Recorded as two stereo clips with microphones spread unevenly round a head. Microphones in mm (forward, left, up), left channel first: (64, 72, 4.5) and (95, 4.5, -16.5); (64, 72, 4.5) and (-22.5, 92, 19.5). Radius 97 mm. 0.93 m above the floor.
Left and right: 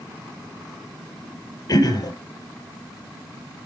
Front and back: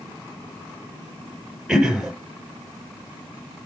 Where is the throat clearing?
85° left, 7 m.